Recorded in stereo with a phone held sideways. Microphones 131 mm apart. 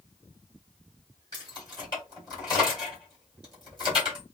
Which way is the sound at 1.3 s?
35° left (ahead or behind).